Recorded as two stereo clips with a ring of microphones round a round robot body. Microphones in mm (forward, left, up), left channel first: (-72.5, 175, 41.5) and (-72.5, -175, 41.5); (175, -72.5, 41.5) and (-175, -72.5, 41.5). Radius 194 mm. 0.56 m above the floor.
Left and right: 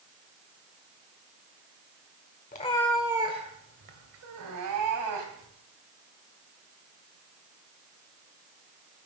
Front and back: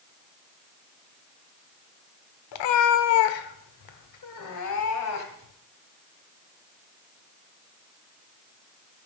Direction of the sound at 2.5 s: 20° left.